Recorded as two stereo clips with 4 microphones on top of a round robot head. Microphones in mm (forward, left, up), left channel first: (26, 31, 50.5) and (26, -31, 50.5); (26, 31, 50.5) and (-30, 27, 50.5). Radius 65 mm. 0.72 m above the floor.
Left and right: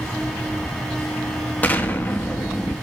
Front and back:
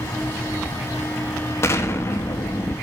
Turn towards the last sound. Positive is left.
turn(degrees=35)